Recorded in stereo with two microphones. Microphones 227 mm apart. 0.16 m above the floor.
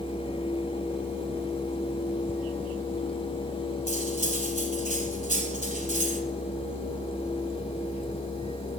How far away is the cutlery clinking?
About 0.9 m.